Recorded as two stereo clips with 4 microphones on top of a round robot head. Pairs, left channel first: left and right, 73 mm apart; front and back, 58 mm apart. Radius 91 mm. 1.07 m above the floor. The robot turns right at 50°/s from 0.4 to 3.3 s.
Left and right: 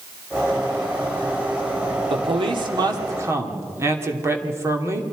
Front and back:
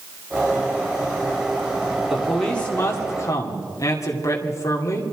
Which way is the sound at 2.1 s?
95° right.